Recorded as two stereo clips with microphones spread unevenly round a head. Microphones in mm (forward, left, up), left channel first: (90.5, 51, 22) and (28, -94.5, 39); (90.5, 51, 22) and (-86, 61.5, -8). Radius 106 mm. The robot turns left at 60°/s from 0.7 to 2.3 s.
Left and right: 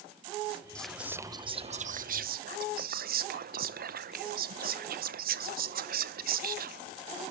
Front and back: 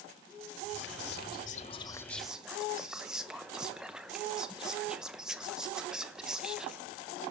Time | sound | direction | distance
0.8 | whispering | 10° right | 0.7 m